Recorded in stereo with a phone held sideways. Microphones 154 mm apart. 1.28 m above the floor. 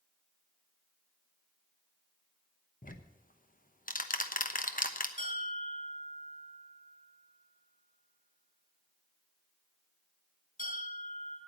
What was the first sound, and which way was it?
Ticking, 65° left (ahead or behind).